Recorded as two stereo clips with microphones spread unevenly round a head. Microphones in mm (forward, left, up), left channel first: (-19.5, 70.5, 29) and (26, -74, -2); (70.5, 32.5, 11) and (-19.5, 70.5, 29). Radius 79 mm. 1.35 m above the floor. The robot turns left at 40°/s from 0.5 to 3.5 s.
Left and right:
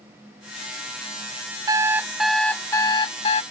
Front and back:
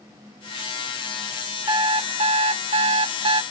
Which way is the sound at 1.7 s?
145° right.